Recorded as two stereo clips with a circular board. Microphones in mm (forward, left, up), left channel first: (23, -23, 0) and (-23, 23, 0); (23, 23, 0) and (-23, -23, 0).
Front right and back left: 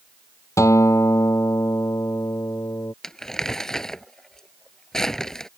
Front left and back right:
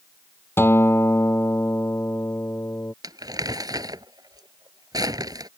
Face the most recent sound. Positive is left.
turn(degrees=-125)